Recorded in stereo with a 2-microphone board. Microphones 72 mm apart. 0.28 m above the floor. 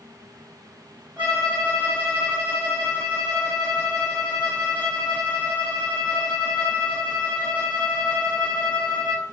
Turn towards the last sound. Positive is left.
turn(degrees=-25)  # may be behind; listen again after turning